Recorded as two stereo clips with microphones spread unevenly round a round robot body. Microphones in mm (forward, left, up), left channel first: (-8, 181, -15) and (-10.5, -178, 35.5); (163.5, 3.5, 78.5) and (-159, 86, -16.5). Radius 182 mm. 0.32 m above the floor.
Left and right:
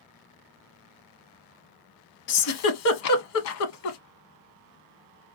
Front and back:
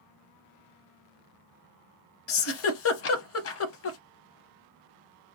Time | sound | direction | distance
2.3 | a giggle | 40° left | 0.6 m